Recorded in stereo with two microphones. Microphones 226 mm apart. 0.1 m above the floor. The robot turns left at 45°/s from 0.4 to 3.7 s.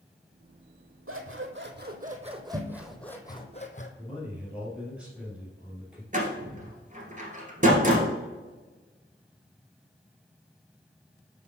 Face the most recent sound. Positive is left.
turn(degrees=-35)  # may be behind; listen again after turning